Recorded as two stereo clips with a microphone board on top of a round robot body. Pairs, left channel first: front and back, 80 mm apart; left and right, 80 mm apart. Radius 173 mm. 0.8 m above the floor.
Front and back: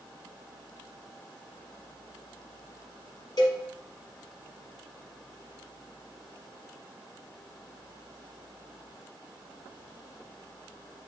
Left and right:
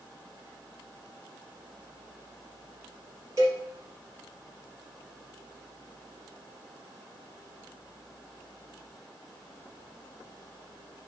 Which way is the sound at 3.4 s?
35° right.